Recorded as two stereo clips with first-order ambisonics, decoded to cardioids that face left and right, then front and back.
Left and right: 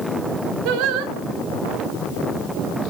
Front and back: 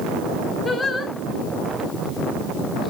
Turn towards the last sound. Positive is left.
turn(degrees=-75)